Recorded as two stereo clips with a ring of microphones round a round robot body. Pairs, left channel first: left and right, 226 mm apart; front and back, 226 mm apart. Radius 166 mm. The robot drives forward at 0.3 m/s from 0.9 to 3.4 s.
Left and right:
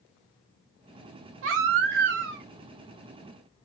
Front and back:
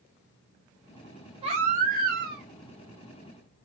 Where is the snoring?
No snoring in this recording.